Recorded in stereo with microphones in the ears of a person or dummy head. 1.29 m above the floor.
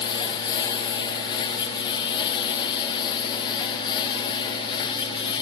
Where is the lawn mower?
25° left (ahead or behind).